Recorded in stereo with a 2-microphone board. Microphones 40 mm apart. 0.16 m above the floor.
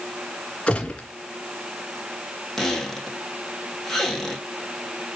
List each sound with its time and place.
0.7 s a gunshot: 30° left (ahead or behind), 2.5 m
2.6 s a squeak: 10° left (ahead or behind), 3.5 m